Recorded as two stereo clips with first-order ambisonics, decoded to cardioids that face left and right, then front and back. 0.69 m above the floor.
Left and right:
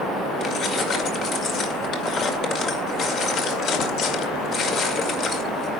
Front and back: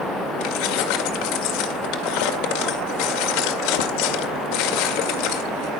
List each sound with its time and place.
0.4 s keys jangling: 25° left, 1.9 m